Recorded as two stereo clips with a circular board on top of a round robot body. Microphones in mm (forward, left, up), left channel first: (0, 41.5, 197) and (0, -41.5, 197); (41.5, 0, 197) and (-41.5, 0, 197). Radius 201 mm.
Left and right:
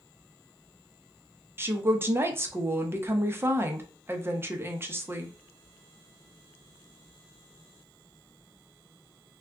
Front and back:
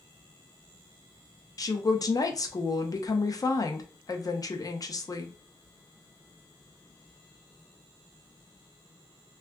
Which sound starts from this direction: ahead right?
A woman speaking, at 1.6 s.